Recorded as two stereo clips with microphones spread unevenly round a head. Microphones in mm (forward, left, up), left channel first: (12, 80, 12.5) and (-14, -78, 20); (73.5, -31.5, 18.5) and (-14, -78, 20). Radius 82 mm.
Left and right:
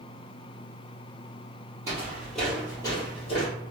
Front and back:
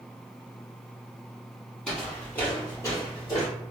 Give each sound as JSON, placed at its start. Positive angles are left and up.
{"t": 1.9, "sound": "footsteps", "azimuth_deg": -50, "distance_m": 1.8}